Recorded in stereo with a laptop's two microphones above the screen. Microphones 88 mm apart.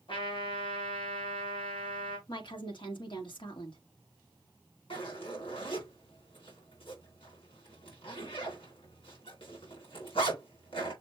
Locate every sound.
0.1 s a trumpet: 80° left, 2 m
2.3 s a woman speaking: 65° left (ahead or behind), 1.7 m
4.9 s a zipper: 90° left, 3 m